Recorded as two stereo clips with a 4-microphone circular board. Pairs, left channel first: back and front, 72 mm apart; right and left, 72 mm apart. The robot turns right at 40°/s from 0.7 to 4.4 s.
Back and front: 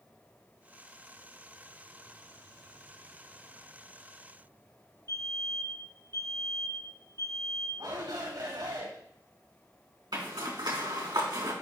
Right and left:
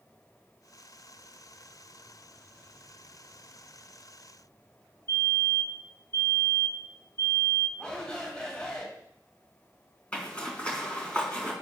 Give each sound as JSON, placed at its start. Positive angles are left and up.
{"t": 5.1, "sound": "a fire alarm", "azimuth_deg": -135, "distance_m": 5.0}
{"t": 7.8, "sound": "a shout", "azimuth_deg": -10, "distance_m": 5.5}
{"t": 10.1, "sound": "a zipper", "azimuth_deg": -15, "distance_m": 3.5}